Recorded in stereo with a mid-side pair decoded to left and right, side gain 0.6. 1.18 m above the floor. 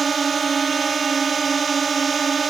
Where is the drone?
25° right.